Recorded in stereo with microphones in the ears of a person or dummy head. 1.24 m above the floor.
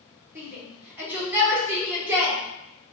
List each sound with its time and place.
0.3 s a shout: 10° right (ahead or behind), 1.2 m